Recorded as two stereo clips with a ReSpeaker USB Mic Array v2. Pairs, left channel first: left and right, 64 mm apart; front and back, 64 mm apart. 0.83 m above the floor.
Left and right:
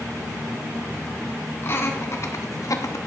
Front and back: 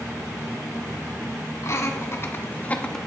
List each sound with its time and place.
1.6 s laughter: 40° left, 1.7 m; by 3.0 s 80° left, 0.8 m